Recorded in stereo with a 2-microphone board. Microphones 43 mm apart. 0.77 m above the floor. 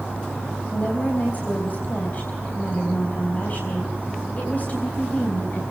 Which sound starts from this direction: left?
A woman speaking, at 0.7 s.